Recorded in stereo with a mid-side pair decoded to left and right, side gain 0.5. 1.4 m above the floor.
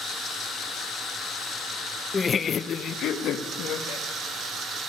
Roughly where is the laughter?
Ahead left.